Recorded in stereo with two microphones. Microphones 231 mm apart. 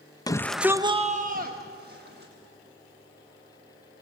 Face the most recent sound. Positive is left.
turn(degrees=-45)  # may be behind; listen again after turning